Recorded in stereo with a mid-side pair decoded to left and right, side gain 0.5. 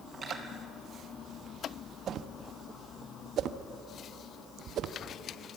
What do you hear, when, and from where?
0.1 s cutlery clinking: 35° right, 8 m
2.1 s a whoosh: 60° right, 1.0 m